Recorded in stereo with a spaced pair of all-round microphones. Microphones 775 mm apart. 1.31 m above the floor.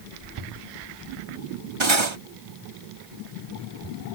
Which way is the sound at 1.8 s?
35° right (ahead or behind).